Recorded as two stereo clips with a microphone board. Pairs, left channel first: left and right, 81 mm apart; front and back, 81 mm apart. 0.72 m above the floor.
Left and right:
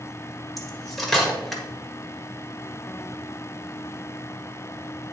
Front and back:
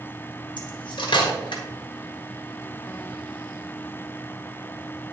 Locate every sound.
0.6 s cutlery clinking: straight ahead, 1.4 m